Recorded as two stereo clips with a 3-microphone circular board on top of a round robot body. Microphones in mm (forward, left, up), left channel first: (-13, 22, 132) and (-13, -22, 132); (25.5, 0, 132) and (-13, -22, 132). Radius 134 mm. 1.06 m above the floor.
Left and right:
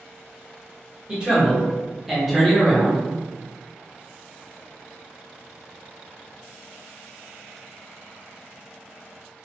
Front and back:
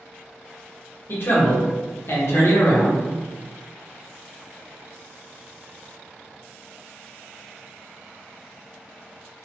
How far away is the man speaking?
About 1.7 m.